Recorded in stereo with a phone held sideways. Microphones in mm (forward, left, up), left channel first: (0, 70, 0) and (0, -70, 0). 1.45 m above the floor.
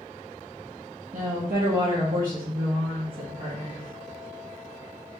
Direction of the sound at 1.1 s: 65° right (ahead or behind).